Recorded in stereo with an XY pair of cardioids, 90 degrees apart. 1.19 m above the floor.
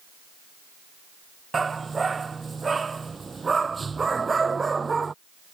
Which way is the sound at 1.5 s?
30° right.